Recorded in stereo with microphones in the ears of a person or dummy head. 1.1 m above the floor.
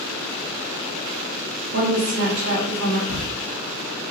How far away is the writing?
About 1.8 m.